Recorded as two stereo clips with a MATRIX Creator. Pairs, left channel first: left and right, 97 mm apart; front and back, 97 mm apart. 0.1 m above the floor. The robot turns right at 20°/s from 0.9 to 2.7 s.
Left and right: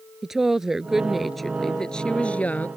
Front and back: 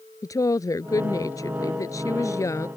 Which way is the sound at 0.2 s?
5° right.